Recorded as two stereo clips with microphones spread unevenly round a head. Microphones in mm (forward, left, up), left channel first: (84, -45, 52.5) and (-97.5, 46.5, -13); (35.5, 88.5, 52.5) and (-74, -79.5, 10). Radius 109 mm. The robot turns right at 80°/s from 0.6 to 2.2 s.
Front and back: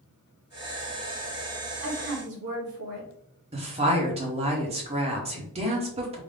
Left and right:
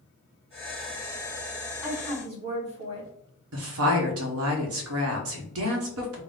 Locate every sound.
1.8 s a woman speaking: 145° left, 2.0 m; by 3.1 s 175° left, 2.0 m
3.5 s a woman speaking: 140° right, 1.1 m